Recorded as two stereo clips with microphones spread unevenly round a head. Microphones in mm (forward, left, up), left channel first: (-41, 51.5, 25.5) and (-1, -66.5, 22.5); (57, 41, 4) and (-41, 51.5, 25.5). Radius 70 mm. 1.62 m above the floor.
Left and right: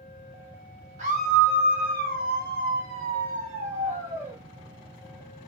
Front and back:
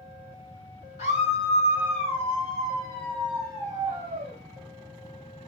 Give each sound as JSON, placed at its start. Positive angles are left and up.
{"t": 1.0, "sound": "a scream", "azimuth_deg": -30, "distance_m": 2.5}